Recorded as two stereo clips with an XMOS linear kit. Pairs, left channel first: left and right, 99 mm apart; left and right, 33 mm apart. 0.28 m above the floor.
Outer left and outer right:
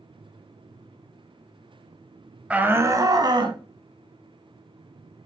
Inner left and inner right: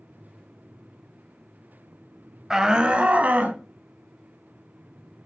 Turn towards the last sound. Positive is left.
turn(degrees=-55)  # may be behind; listen again after turning